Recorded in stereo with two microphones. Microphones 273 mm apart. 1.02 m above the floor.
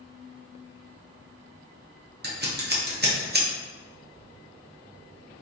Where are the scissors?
35° right (ahead or behind), 0.7 m.